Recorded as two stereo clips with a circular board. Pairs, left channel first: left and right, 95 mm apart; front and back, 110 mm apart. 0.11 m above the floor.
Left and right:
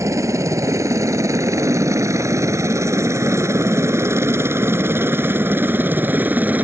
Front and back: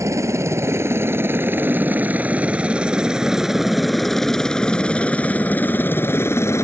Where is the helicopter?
130° right; by 6.6 s 35° right.